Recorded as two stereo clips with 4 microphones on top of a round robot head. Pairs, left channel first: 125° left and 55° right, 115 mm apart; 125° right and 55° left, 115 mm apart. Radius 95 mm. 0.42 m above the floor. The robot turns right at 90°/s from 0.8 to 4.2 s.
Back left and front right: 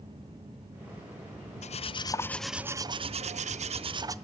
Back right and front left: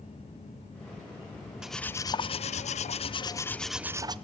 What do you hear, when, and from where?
1.6 s cutlery clinking: 140° left, 0.9 m; by 4.2 s 5° left, 0.9 m